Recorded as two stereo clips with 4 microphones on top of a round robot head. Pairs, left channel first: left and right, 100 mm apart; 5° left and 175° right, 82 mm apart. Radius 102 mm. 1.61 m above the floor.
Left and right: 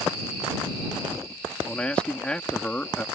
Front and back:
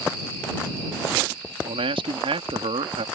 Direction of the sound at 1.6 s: 170° left.